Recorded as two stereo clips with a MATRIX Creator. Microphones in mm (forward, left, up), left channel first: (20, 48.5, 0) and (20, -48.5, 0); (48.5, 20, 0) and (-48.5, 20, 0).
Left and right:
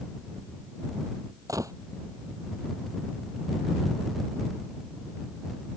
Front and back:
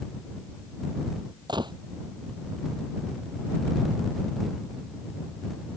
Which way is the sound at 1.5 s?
145° right.